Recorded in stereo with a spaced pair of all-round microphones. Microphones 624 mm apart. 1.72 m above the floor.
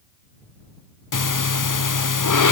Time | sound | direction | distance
1.1 | breathing | 35° left (ahead or behind) | ?